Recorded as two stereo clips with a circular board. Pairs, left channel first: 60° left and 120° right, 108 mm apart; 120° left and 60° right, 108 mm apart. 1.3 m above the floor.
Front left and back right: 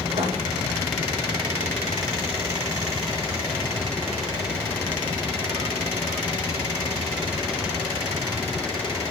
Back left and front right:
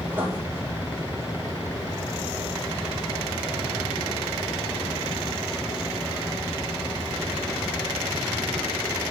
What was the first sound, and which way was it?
Writing, 130° right.